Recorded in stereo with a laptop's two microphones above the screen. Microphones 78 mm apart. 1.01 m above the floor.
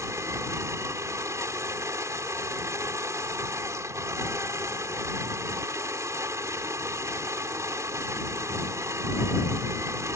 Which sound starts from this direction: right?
A machine running, at 0.0 s.